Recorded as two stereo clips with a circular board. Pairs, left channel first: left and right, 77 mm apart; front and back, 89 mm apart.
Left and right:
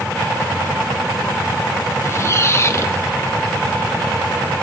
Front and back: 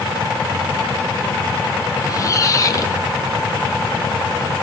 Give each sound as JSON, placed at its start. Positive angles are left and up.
{"t": 2.0, "sound": "a squeak", "azimuth_deg": 45, "distance_m": 0.7}